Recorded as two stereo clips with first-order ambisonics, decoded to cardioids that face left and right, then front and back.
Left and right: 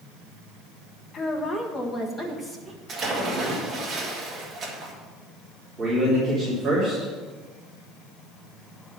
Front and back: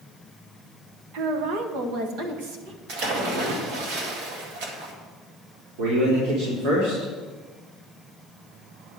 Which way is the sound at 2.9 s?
160° right.